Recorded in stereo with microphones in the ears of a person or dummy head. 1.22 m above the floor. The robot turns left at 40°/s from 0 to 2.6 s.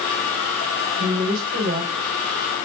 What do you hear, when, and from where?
1.0 s a woman speaking: 60° right, 4 m; by 1.9 s 95° right, 4 m